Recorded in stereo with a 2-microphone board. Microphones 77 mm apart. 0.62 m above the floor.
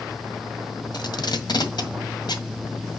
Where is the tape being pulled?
70° left (ahead or behind), 1.8 m.